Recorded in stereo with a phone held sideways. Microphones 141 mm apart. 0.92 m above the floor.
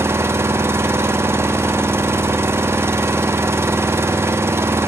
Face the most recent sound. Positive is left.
turn(degrees=-15)  # may be behind; listen again after turning